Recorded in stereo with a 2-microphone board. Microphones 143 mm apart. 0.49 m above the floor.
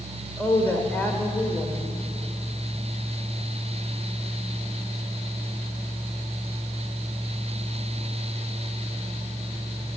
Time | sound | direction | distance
0.4 | a woman speaking | 15° left (ahead or behind) | 1.8 m